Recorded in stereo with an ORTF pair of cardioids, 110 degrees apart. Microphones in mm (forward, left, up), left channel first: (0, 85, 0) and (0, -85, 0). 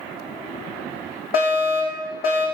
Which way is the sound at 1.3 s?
60° left.